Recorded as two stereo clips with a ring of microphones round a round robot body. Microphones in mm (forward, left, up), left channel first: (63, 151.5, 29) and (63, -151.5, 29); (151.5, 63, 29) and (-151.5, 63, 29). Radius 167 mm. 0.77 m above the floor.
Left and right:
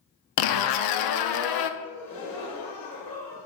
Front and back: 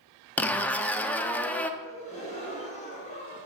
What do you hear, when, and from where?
0.4 s a zipper: 85° left, 0.8 m
1.8 s a gasp: 70° left, 3.5 m